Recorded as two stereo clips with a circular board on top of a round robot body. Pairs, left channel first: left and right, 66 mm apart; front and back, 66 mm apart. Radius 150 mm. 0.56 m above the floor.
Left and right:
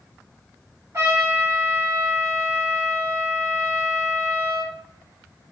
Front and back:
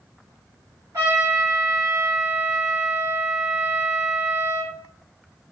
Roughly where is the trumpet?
Behind right.